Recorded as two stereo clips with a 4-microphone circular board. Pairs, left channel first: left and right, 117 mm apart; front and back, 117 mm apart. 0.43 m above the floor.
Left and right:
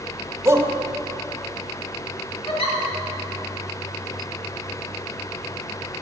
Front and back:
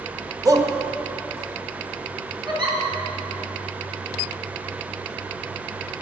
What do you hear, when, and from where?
0.5 s a shout: 145° right, 1.6 m
2.5 s a giggle: 130° left, 4.5 m